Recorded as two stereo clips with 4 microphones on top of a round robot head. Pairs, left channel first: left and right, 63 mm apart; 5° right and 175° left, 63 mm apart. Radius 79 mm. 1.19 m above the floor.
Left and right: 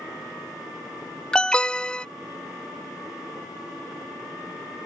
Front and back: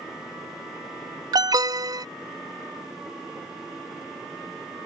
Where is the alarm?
165° left.